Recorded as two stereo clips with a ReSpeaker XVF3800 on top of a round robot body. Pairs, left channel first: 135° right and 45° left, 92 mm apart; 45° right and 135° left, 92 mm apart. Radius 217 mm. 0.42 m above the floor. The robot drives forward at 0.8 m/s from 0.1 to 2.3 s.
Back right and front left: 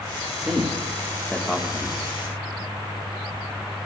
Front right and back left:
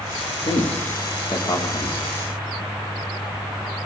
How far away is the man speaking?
About 2.5 m.